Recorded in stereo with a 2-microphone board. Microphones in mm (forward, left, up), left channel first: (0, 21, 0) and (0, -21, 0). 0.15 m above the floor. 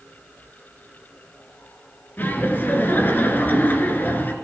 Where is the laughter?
50° left (ahead or behind), 2.5 m.